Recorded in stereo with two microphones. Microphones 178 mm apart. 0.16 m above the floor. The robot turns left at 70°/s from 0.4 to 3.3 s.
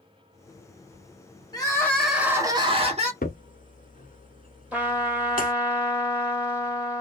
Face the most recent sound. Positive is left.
turn(degrees=-5)  # may be behind; listen again after turning